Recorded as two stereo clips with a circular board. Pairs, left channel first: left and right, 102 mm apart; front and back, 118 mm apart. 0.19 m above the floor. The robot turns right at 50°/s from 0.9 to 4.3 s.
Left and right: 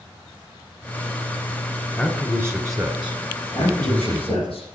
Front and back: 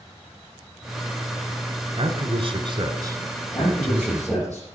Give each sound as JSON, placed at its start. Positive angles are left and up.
{"t": 2.0, "sound": "a man speaking", "azimuth_deg": 150, "distance_m": 1.4}
{"t": 3.5, "sound": "a man speaking", "azimuth_deg": 55, "distance_m": 5.0}